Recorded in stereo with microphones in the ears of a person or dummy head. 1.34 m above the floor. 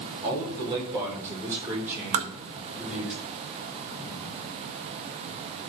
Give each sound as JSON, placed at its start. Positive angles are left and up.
{"t": 0.2, "sound": "a man speaking", "side_deg": -30, "distance_m": 5.0}
{"t": 2.1, "sound": "tapping", "side_deg": -35, "distance_m": 1.7}